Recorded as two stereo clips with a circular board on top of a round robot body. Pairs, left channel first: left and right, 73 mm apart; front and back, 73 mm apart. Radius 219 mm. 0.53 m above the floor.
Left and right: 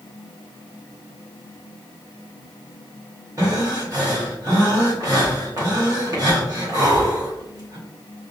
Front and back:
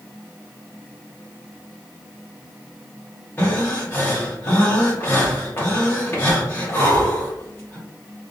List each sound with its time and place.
3.4 s breathing: 55° right, 1.4 m